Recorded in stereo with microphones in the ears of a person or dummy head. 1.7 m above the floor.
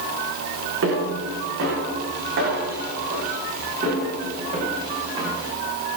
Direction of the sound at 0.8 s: 70° right (ahead or behind).